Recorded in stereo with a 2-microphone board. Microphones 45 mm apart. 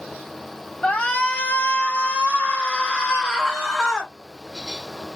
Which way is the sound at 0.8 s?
30° left (ahead or behind).